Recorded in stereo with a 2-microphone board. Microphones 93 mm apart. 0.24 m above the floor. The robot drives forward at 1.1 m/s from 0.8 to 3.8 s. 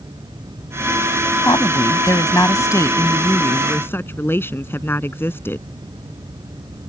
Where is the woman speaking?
40° left (ahead or behind); by 5.7 s 25° left (ahead or behind).